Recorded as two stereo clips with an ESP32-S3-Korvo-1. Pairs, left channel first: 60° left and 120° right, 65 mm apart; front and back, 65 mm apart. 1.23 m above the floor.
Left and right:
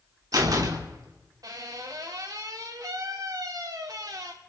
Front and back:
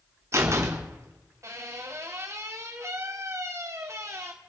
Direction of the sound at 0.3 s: 140° right.